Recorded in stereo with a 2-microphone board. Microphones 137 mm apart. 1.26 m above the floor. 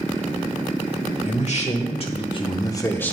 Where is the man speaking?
55° left (ahead or behind), 1.5 m; by 3.1 s 10° left (ahead or behind), 0.8 m.